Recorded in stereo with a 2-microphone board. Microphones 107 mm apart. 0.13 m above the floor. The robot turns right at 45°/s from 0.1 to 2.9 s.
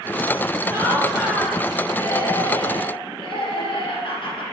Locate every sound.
0.7 s laughter: 35° right, 3 m; by 4.4 s 65° left, 3 m